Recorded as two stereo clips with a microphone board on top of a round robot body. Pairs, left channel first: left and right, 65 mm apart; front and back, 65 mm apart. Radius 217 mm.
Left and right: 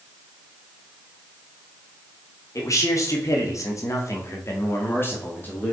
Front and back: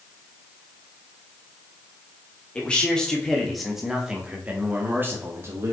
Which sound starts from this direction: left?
A man speaking, at 2.5 s.